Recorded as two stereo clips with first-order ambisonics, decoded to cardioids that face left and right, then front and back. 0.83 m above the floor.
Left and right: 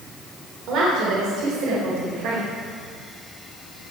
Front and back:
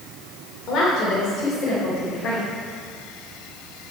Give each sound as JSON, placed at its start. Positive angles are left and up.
{"t": 0.7, "sound": "a woman speaking", "azimuth_deg": -50, "distance_m": 3.0}